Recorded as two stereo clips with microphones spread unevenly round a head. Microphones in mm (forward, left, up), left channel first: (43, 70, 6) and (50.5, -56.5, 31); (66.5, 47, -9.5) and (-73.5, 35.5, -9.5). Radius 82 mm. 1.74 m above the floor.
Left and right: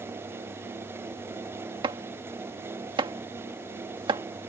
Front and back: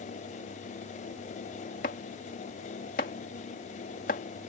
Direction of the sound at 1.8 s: 40° right.